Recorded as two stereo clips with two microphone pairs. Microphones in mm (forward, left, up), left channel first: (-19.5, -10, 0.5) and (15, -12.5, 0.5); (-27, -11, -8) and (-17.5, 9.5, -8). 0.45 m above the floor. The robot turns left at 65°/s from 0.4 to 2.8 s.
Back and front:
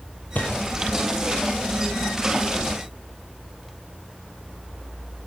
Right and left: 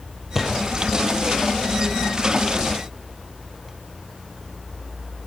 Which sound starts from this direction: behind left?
A gunshot, at 0.3 s.